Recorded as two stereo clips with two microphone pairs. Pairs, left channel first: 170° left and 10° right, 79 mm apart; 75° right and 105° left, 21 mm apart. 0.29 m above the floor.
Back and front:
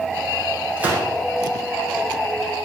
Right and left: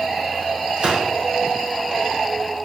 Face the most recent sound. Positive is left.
turn(degrees=60)